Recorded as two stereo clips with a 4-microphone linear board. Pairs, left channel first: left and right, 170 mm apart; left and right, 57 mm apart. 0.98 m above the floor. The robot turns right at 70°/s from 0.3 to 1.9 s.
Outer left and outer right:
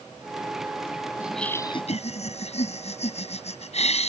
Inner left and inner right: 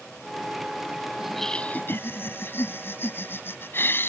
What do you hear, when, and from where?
1.2 s laughter: 10° right; by 4.1 s 40° left